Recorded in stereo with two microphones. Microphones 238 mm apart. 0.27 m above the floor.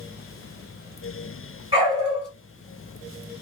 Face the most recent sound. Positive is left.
turn(degrees=-20)  # may be behind; listen again after turning